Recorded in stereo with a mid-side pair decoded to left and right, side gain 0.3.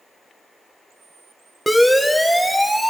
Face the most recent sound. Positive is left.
turn(degrees=-10)